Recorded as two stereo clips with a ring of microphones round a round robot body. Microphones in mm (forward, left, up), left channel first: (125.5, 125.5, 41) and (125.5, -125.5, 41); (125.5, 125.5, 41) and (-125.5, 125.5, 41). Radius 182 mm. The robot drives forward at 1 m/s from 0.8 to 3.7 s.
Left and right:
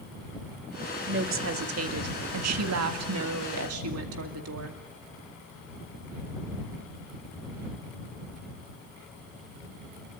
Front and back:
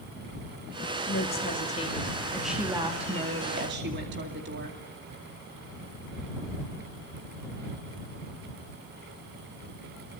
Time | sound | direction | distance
1.1 | a woman speaking | 55° right | 2.5 m